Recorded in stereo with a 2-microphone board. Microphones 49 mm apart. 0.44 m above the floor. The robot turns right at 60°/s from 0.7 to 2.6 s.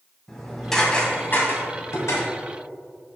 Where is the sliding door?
No sliding door in this recording.